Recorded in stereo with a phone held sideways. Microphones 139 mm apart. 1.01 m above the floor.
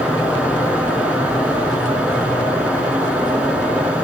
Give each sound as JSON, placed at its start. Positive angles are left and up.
{"t": 0.0, "sound": "a fan", "side_deg": -10, "distance_m": 5.5}